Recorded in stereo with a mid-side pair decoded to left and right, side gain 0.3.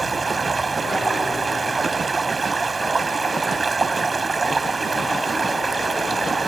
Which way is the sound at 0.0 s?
45° right.